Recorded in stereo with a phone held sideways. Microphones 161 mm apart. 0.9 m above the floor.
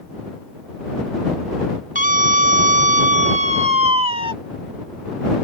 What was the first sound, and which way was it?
A scream, 55° right (ahead or behind).